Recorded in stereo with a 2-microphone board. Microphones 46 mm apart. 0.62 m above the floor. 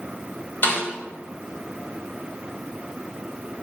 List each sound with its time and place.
0.6 s a snare drum: 50° left (ahead or behind), 3 m